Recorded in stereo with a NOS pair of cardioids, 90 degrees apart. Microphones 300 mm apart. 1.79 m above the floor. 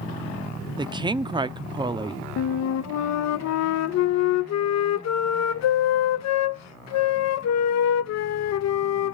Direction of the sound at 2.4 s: 60° left.